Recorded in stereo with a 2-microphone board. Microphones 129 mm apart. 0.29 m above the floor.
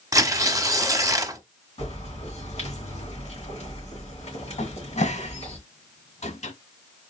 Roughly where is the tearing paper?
Right.